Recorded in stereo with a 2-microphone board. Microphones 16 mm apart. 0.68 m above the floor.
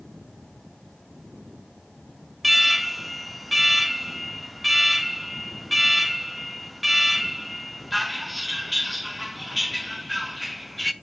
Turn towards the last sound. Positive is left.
turn(degrees=0)  # may be behind; listen again after turning